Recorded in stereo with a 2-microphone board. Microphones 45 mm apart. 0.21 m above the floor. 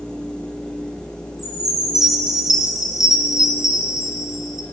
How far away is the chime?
About 2.5 m.